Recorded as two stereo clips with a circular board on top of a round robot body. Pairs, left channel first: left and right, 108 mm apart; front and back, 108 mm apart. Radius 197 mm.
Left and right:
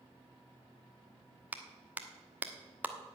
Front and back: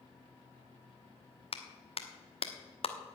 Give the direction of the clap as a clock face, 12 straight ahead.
1 o'clock.